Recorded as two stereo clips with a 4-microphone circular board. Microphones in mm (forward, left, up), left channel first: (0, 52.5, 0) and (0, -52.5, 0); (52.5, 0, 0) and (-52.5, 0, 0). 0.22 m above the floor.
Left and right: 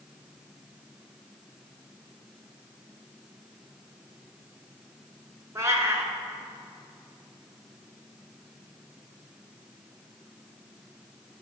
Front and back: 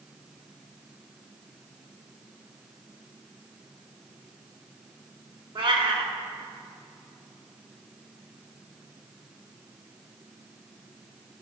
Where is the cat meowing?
150° right, 1.1 m.